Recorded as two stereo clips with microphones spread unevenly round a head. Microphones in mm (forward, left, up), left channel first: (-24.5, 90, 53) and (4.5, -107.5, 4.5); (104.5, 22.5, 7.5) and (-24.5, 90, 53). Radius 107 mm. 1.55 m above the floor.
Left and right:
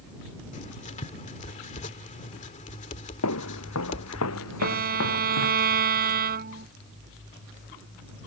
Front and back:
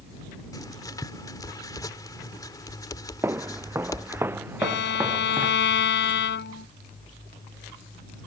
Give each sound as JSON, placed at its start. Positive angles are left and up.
{"t": 0.5, "sound": "writing", "azimuth_deg": 40}
{"t": 3.2, "sound": "footsteps", "azimuth_deg": 80}
{"t": 4.6, "sound": "a violin", "azimuth_deg": -30}